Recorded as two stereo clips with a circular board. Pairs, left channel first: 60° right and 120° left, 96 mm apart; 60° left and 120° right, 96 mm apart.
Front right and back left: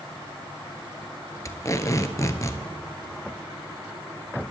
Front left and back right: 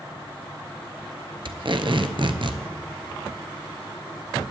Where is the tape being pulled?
110° right, 0.8 m.